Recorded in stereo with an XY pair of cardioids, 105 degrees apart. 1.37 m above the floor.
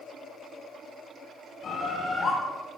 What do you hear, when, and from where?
1.6 s a bird: 55° left, 6 m